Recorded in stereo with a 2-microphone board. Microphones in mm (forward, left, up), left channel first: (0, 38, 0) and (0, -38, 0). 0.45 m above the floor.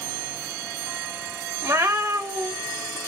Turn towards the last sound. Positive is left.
turn(degrees=-40)  # may be behind; listen again after turning